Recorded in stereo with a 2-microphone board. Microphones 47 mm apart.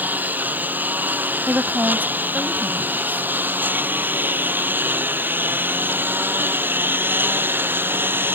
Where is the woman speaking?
40° right (ahead or behind).